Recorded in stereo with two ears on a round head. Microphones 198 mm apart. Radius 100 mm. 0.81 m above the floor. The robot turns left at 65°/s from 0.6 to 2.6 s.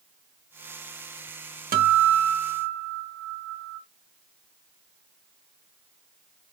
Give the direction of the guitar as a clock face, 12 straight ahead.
1 o'clock.